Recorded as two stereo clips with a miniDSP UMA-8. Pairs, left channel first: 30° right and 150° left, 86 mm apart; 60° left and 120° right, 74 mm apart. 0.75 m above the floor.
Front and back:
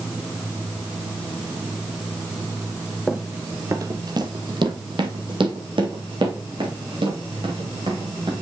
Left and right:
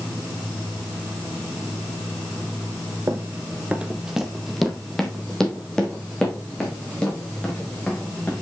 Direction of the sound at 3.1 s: 130° right.